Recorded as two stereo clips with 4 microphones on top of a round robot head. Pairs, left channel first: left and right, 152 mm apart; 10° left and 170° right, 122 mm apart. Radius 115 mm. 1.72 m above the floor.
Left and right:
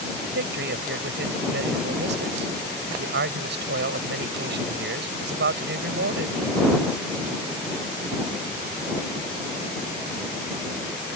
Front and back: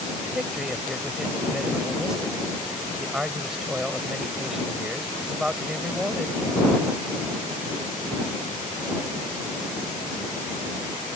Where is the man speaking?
80° right.